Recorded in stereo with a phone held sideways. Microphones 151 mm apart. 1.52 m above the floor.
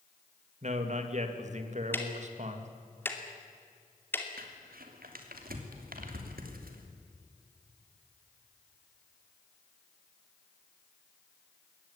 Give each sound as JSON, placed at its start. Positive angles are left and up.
{"t": 0.6, "sound": "a man speaking", "side_deg": -50, "distance_m": 2.5}
{"t": 1.9, "sound": "ticking", "side_deg": 15, "distance_m": 2.5}
{"t": 4.4, "sound": "crumpling", "side_deg": -75, "distance_m": 3.0}